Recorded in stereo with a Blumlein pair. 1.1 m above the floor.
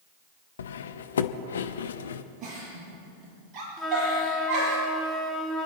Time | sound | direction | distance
0.6 | cutlery clinking | 65° left | 0.7 m
2.4 | a giggle | 25° right | 7 m
3.8 | a flute | straight ahead | 2.5 m